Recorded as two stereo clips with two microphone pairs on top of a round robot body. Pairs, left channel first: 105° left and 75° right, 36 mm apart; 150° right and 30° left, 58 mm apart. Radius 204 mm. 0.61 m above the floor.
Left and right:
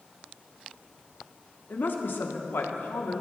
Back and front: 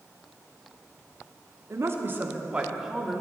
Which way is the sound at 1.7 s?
75° left.